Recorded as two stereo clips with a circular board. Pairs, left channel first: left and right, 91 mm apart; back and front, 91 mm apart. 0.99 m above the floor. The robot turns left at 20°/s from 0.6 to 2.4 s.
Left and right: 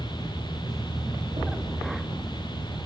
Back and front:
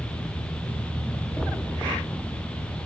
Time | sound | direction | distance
1.4 | a thud | 105° right | 7.5 m